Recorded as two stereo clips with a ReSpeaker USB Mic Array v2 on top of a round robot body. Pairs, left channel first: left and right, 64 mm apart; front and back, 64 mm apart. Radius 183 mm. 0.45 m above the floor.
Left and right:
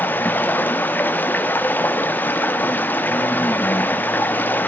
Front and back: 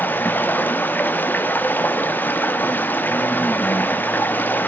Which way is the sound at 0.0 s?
45° left.